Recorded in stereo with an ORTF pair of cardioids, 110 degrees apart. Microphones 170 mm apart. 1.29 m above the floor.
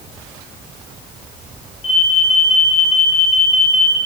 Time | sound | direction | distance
1.8 | an alarm | 35° left | 8.5 m